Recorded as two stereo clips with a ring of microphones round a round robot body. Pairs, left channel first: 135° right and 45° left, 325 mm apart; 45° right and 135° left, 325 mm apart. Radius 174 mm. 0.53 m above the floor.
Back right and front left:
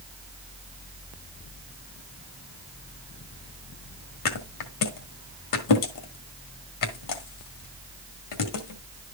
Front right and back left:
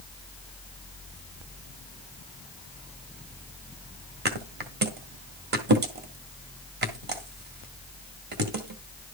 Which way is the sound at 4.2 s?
165° right.